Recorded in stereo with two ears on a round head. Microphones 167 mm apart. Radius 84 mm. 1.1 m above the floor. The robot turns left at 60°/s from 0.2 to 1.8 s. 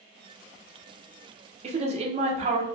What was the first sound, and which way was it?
A woman speaking, 40° right (ahead or behind).